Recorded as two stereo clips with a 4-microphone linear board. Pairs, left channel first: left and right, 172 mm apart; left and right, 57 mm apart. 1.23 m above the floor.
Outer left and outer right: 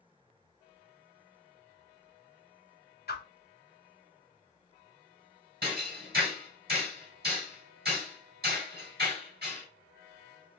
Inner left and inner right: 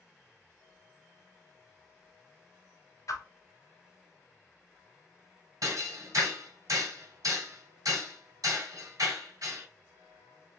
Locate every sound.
3.1 s a whoosh: 60° left (ahead or behind), 0.6 m
5.6 s hammering: 60° right (ahead or behind), 1.8 m